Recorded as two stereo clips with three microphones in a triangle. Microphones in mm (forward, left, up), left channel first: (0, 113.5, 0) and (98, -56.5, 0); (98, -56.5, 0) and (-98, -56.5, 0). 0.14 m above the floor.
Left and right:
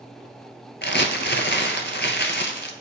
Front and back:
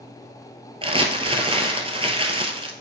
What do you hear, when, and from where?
0.8 s crumpling: 125° left, 1.1 m